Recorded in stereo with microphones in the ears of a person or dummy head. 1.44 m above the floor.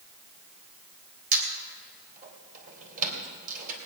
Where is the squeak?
45° right (ahead or behind), 3 m.